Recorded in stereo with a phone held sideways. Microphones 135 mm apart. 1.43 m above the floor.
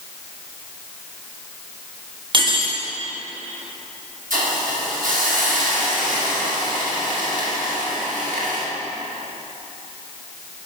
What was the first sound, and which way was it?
Cutlery clinking, 35° right (ahead or behind).